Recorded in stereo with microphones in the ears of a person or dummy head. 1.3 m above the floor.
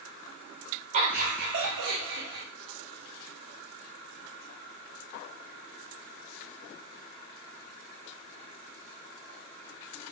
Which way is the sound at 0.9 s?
40° right (ahead or behind).